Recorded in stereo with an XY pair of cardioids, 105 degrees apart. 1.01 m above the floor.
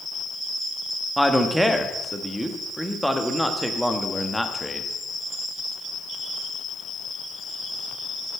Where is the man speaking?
Straight ahead, 1.2 m.